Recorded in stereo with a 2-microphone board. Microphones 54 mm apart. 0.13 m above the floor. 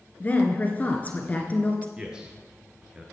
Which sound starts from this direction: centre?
A man speaking, at 2.0 s.